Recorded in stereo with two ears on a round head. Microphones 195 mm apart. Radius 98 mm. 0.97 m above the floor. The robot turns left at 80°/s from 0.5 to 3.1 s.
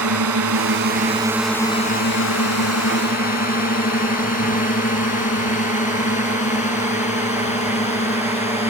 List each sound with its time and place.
0.0 s a drone: 80° right; by 8.7 s 30° left (ahead or behind)